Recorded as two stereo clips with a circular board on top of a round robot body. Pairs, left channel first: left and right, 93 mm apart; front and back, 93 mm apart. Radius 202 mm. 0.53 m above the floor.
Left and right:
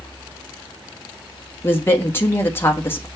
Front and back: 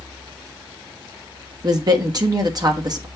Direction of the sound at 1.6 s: 150° left.